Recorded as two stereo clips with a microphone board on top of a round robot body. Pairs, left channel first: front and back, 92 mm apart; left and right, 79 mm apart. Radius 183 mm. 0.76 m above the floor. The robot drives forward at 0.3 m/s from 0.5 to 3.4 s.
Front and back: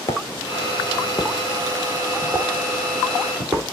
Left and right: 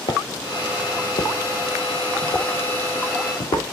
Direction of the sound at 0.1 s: 55° left.